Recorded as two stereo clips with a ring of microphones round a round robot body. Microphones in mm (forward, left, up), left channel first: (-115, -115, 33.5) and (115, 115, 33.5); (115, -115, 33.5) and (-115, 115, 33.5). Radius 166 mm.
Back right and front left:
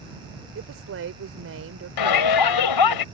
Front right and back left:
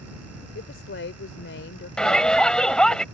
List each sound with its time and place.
0.6 s a woman speaking: 5° left
2.0 s a shout: 135° right